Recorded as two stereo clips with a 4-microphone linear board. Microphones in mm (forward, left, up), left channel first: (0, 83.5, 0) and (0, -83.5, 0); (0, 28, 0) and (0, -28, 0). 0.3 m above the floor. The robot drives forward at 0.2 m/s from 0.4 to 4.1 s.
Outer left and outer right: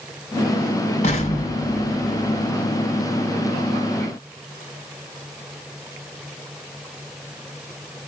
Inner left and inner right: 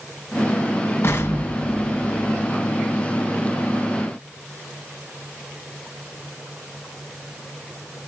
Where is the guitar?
I don't hear a guitar.